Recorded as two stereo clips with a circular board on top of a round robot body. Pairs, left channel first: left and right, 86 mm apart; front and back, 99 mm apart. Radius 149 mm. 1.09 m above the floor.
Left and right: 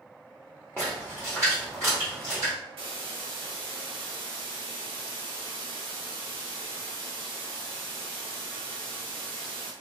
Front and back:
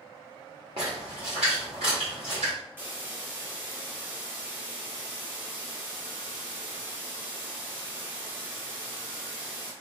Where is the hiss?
110° right, 1.2 m.